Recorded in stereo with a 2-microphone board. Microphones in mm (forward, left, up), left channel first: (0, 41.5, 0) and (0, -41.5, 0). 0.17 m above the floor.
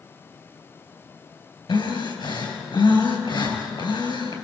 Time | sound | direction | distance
1.7 | breathing | 65° left (ahead or behind) | 4 m